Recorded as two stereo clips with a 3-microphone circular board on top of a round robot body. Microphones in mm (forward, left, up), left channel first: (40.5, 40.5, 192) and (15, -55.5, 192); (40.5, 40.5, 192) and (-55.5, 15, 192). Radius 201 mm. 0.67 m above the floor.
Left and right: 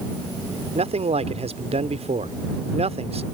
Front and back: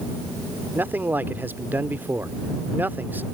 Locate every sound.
0.8 s a man speaking: 90° right